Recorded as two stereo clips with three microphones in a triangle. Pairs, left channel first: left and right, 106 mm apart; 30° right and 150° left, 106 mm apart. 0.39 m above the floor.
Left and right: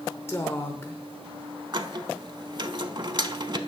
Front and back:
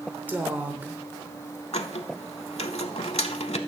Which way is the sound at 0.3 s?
105° left.